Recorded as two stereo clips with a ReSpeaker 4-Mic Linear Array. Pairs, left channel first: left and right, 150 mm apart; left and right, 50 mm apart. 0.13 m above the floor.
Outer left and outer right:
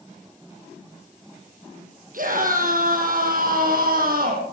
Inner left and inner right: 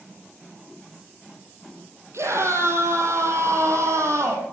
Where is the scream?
65° right (ahead or behind), 4.5 m; by 4.4 s 75° right (ahead or behind), 5 m.